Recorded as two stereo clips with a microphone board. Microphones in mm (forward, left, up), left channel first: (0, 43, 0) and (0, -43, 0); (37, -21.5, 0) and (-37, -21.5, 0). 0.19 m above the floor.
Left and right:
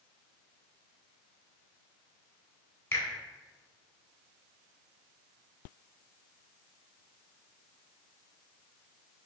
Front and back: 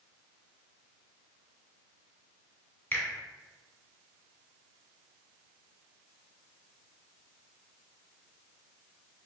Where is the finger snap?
45° left, 1.2 m.